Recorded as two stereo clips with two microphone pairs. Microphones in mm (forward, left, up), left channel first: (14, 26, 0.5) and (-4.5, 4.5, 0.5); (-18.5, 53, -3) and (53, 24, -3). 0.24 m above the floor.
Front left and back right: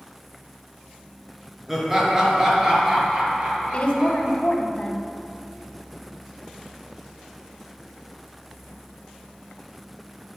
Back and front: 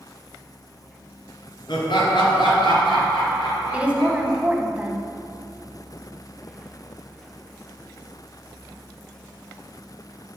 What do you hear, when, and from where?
1.7 s laughter: 150° left, 3 m; by 4.4 s 175° left, 5 m
3.7 s a woman speaking: 45° left, 1.4 m